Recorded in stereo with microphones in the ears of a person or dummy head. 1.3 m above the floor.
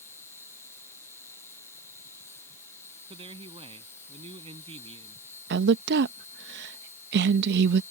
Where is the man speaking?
30° right (ahead or behind).